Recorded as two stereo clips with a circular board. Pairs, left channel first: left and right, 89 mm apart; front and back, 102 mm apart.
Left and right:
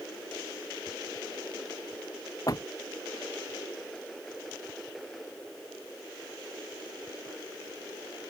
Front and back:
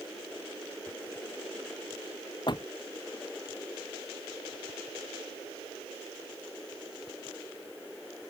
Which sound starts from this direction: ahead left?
A door slam, at 2.5 s.